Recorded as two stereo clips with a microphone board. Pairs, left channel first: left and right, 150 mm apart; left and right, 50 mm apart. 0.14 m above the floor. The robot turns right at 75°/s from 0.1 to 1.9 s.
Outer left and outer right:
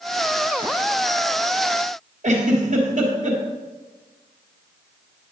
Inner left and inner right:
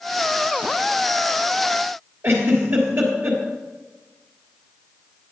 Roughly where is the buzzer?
No buzzer in this recording.